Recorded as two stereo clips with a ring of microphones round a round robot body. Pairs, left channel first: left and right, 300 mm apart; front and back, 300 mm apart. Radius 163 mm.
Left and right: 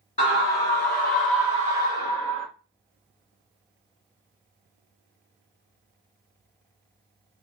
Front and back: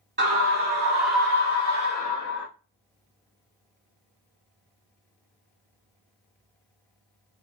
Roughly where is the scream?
Behind left.